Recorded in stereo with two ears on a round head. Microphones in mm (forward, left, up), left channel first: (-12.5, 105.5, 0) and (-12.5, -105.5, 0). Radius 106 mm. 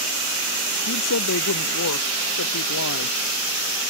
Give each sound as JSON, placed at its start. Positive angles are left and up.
{"t": 0.9, "sound": "a woman speaking", "side_deg": 65}